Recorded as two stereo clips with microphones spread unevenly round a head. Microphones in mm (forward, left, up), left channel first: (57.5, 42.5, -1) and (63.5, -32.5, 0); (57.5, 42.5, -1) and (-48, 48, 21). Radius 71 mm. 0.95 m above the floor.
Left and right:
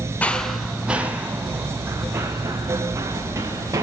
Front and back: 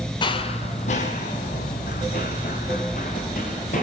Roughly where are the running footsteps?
Ahead left.